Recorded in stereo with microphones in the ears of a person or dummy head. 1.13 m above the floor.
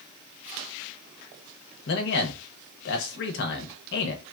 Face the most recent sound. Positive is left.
turn(degrees=60)  # may be behind; listen again after turning